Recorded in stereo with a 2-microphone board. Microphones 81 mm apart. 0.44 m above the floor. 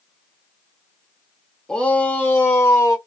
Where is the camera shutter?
I don't hear a camera shutter.